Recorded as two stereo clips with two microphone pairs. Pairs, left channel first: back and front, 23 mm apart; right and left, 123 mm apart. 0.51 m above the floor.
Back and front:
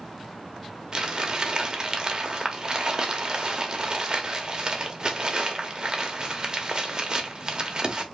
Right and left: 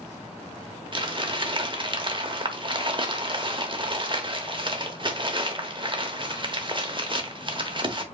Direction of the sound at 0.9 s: 45° left.